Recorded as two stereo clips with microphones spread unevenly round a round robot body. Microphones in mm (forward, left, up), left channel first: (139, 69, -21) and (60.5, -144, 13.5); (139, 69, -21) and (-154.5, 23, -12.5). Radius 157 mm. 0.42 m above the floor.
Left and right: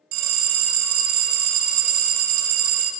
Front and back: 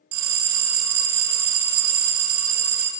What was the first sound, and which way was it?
A bell, 120° right.